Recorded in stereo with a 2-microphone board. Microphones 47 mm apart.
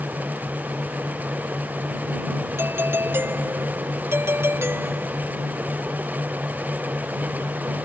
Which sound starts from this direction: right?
A doorbell, at 2.6 s.